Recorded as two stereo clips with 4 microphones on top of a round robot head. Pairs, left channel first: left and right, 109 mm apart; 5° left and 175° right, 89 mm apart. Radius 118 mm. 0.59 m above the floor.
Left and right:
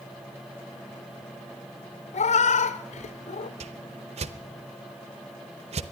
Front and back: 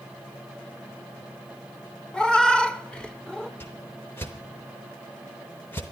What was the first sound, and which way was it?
A cat meowing, 85° left.